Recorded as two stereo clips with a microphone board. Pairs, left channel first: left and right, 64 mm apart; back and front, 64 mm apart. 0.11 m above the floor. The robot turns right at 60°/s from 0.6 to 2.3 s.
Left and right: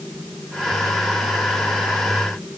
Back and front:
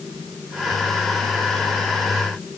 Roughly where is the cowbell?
No cowbell in this recording.